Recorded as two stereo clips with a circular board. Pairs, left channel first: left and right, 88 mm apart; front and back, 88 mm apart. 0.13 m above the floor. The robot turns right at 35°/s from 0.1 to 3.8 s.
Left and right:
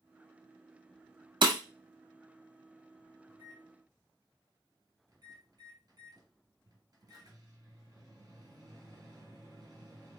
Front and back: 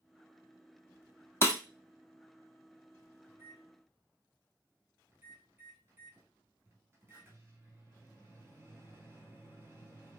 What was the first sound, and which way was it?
Breaking glass, 60° right.